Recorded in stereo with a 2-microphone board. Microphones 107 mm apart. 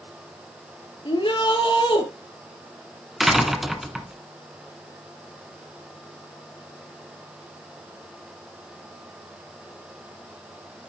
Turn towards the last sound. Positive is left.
turn(degrees=0)  # may be behind; listen again after turning